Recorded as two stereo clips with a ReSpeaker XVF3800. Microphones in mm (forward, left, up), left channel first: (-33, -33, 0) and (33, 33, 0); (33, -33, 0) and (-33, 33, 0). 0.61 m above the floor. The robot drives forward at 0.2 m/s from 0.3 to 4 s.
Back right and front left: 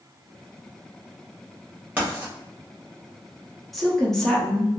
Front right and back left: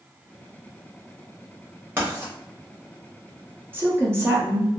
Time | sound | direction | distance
2.0 | writing | 95° left | 1.0 m
3.7 | a woman speaking | 140° left | 0.5 m